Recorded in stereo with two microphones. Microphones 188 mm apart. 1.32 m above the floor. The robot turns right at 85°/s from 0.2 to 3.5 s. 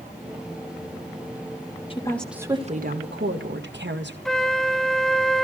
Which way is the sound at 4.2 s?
Centre (ahead or behind).